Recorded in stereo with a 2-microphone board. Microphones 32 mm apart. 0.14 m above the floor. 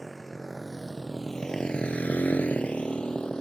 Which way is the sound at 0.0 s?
Centre (ahead or behind).